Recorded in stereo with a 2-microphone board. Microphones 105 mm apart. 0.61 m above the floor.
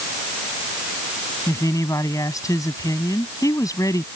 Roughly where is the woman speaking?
Left.